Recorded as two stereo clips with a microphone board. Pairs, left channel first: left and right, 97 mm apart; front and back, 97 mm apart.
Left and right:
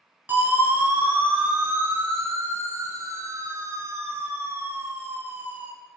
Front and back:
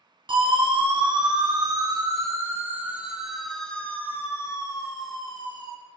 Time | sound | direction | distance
0.3 | a siren | 160° right | 4.5 m